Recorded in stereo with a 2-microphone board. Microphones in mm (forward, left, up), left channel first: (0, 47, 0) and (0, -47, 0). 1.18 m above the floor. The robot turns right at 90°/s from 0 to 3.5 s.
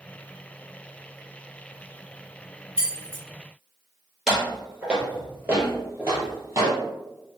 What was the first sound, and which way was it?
Keys jangling, 85° right.